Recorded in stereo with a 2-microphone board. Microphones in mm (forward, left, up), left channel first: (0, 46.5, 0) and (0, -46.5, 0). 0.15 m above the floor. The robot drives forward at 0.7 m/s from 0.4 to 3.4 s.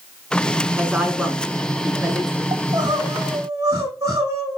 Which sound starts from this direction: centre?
A woman speaking, at 0.6 s.